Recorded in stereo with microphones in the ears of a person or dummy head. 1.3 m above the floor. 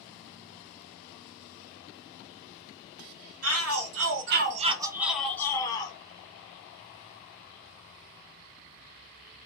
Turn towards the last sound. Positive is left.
turn(degrees=25)  # may be behind; listen again after turning